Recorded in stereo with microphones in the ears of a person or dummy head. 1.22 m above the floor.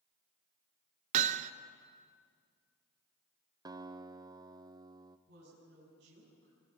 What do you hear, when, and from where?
1.1 s hammering: 45° right (ahead or behind), 0.9 m
3.6 s a guitar: 20° right (ahead or behind), 0.8 m
5.3 s a woman speaking: 65° right (ahead or behind), 8 m